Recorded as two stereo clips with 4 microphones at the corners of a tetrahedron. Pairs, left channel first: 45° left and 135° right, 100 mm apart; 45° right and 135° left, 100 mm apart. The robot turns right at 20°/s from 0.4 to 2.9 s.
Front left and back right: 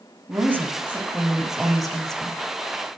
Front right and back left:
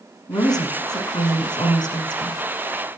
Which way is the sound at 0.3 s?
75° right.